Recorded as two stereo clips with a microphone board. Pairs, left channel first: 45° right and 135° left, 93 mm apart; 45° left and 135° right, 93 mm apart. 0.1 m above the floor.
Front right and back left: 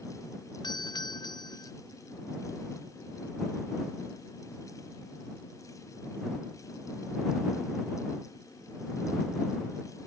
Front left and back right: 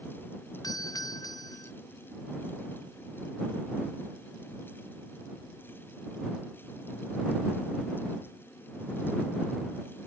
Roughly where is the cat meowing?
No cat meowing in this recording.